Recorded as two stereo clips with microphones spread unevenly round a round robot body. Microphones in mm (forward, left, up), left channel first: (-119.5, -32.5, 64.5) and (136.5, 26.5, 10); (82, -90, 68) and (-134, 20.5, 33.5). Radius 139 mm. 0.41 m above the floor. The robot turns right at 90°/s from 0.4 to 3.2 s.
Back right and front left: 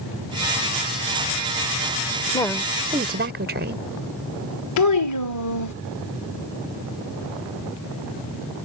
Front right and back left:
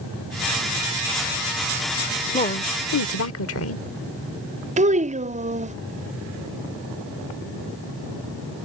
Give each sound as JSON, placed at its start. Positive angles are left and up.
{"t": 2.3, "sound": "a woman speaking", "azimuth_deg": -90}
{"t": 4.8, "sound": "a child speaking", "azimuth_deg": -155}